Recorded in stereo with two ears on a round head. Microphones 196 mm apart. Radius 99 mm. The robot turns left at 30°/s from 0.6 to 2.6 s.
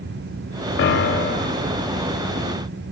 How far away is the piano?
About 0.6 m.